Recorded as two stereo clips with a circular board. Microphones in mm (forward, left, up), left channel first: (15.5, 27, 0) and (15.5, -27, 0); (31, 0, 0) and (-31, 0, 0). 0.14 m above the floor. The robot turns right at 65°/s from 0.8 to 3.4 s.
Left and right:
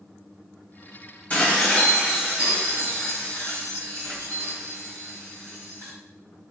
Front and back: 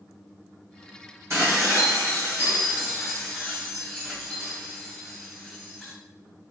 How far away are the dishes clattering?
About 1.8 m.